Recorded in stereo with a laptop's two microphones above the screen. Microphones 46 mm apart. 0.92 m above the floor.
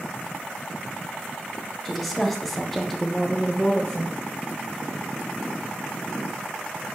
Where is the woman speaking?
Centre (ahead or behind), 0.9 m; by 4.2 s 5° left (ahead or behind), 1.0 m.